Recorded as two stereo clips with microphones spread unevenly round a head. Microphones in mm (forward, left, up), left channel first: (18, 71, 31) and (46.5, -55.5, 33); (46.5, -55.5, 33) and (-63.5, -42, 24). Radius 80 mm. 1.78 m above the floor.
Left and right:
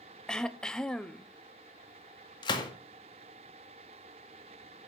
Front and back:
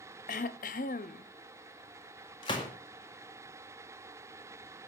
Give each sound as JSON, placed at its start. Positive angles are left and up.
{"t": 0.3, "sound": "throat clearing", "azimuth_deg": 15, "distance_m": 0.6}
{"t": 2.4, "sound": "a gunshot", "azimuth_deg": 50, "distance_m": 1.9}